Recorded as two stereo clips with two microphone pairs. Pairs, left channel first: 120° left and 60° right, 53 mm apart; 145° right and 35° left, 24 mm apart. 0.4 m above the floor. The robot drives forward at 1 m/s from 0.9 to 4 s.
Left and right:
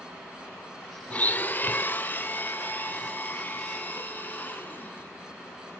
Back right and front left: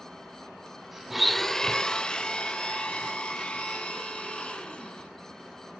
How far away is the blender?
About 0.7 m.